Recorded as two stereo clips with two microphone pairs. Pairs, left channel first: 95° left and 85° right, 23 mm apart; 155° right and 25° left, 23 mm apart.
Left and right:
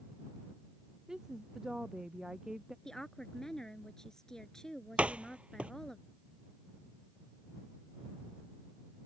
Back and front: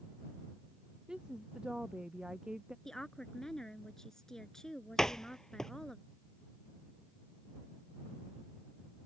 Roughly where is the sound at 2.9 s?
Behind left.